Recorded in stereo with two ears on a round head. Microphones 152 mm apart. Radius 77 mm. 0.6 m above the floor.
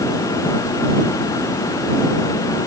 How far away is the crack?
I don't hear a crack.